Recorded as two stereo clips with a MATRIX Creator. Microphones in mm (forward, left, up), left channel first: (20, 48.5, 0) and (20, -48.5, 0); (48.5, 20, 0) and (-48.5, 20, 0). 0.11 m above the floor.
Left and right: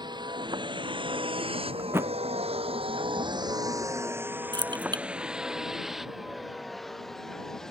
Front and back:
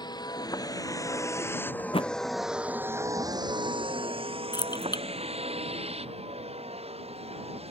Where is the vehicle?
45° right; by 7.7 s 175° left.